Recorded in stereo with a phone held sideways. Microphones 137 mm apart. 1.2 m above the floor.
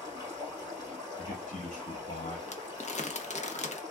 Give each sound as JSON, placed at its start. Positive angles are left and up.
{"t": 0.0, "sound": "running water", "side_deg": 30, "distance_m": 3.0}
{"t": 1.2, "sound": "a man speaking", "side_deg": 65, "distance_m": 1.1}
{"t": 2.5, "sound": "crumpling", "side_deg": 55, "distance_m": 0.6}